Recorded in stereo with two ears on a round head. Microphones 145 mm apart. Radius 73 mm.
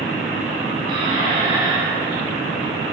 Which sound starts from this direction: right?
A squeak, at 0.9 s.